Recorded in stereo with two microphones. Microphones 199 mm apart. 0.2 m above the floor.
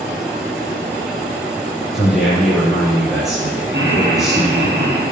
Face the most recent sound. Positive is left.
turn(degrees=-75)  # may be behind; listen again after turning